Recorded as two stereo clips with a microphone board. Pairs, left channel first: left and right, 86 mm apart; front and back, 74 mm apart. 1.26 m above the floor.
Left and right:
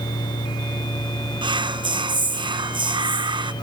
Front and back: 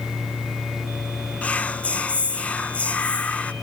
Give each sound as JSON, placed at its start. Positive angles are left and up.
{"t": 1.4, "sound": "whispering", "azimuth_deg": -70, "distance_m": 0.5}